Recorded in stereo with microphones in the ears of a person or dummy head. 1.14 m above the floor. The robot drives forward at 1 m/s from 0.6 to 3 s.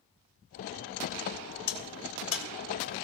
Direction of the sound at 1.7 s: 65° left (ahead or behind).